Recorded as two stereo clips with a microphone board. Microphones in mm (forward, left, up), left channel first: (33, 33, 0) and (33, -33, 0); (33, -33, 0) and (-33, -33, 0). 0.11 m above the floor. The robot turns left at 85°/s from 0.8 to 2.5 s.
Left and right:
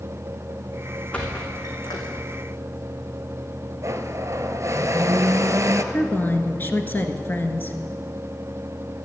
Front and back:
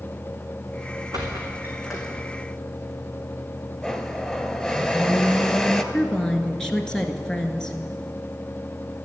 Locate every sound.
1.1 s a squeak: 160° left, 3.5 m; by 2.2 s 65° left, 3.5 m
3.8 s a blender: 75° right, 1.0 m
5.9 s a woman speaking: 70° left, 1.4 m